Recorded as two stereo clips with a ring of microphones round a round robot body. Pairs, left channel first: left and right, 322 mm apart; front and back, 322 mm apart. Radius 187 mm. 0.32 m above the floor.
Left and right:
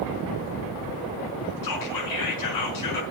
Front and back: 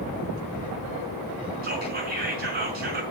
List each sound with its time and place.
1.6 s whispering: 115° left, 4.5 m